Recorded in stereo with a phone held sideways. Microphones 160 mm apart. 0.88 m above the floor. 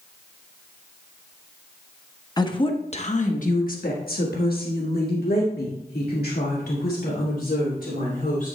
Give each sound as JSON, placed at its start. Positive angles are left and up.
{"t": 2.4, "sound": "a woman speaking", "side_deg": 25, "distance_m": 0.9}